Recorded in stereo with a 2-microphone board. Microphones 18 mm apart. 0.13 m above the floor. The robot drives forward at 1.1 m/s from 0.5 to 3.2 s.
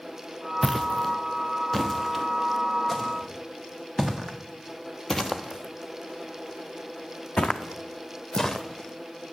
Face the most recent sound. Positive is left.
turn(degrees=30)  # may be behind; listen again after turning